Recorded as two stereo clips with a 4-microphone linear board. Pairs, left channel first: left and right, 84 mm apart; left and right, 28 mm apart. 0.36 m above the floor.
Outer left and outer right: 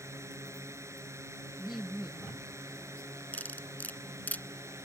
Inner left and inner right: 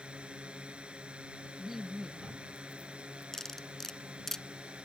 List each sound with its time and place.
0.0 s a drone: 35° right (ahead or behind)
1.6 s laughter: 5° right (ahead or behind)
3.3 s cutlery clinking: 20° left (ahead or behind)